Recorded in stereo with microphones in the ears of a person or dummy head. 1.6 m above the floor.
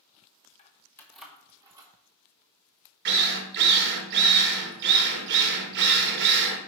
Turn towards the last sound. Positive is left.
turn(degrees=-55)  # may be behind; listen again after turning